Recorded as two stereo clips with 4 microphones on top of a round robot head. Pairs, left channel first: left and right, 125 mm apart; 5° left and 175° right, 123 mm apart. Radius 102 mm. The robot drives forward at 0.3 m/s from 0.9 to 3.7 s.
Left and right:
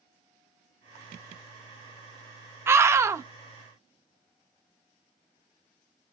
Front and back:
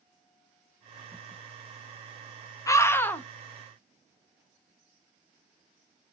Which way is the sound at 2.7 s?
35° right.